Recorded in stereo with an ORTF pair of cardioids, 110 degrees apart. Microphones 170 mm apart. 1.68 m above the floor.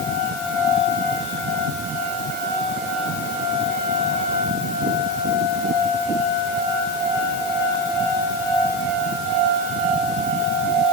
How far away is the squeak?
No squeak in this recording.